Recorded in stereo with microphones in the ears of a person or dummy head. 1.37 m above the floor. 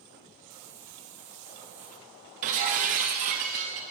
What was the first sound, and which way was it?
A hiss, 55° right (ahead or behind).